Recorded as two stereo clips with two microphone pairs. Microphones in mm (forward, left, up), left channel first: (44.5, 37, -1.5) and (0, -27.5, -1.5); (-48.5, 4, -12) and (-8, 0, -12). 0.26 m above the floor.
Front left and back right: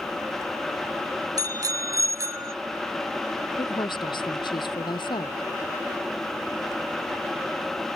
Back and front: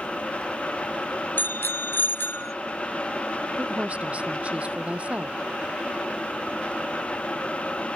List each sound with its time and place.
1.4 s a bicycle bell: 160° right; by 2.5 s 175° right
3.6 s a woman speaking: 50° left